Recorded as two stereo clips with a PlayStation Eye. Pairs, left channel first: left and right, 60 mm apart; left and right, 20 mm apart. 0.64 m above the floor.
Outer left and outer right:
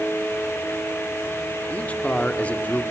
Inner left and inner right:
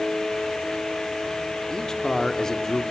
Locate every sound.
1.7 s a man speaking: 25° left (ahead or behind), 1.3 m